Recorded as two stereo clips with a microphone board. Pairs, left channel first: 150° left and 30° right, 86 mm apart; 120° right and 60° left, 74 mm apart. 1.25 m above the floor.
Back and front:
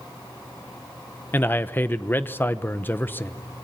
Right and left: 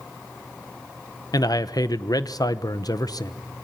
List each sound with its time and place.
1.3 s a man speaking: 145° right, 0.9 m